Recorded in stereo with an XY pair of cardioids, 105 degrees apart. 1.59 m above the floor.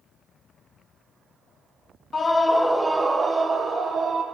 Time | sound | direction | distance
2.1 | a scream | 30° left | 0.6 m